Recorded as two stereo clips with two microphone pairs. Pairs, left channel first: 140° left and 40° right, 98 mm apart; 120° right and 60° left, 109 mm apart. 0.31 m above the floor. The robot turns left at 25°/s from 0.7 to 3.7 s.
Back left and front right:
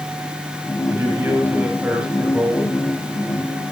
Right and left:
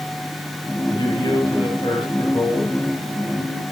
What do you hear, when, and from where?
0.9 s a man speaking: 90° right, 1.7 m; by 2.8 s 135° right, 1.7 m